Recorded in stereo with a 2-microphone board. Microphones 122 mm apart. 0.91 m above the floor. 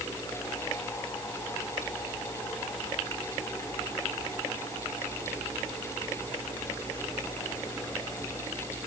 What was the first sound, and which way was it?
Only background noise.